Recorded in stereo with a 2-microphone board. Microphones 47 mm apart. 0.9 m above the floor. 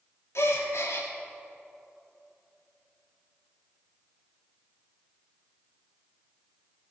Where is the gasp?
75° left (ahead or behind), 1.5 m.